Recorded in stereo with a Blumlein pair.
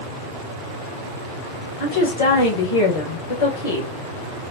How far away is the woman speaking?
About 1.6 m.